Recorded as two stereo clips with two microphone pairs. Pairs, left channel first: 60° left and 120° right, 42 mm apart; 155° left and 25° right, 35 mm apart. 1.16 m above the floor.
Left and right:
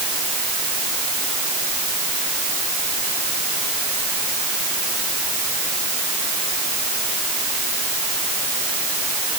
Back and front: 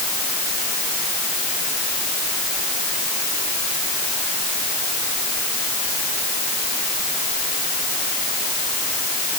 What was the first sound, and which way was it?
Only background noise.